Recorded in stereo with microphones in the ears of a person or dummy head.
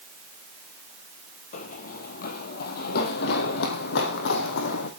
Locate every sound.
1.5 s running footsteps: 40° left (ahead or behind), 2 m; by 4.9 s 65° left (ahead or behind), 4 m